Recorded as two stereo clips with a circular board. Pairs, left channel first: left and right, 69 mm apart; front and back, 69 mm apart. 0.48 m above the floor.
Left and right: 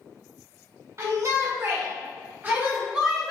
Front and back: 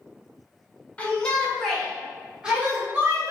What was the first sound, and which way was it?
A shout, 70° right.